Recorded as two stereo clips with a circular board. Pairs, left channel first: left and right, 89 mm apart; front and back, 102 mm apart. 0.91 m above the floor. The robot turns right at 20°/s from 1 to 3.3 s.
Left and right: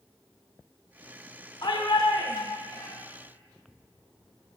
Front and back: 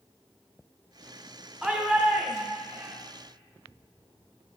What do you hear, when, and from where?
1.6 s a shout: 105° left, 0.8 m; by 3.0 s 130° left, 0.8 m